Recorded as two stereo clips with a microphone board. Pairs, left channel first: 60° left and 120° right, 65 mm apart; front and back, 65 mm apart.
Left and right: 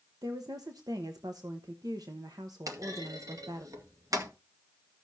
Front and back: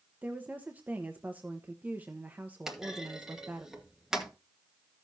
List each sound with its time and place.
0.2 s a woman speaking: 115° right, 0.9 m
2.7 s a clunk: 100° right, 1.6 m